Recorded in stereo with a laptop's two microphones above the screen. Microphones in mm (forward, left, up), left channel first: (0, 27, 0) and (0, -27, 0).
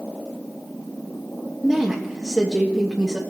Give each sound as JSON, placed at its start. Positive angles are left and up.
{"t": 1.6, "sound": "a woman speaking", "side_deg": -5, "distance_m": 1.3}